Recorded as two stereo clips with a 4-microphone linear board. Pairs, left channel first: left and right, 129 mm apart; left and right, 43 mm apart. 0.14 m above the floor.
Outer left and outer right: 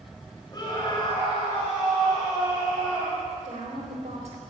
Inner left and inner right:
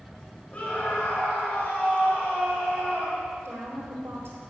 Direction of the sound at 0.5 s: 30° left (ahead or behind).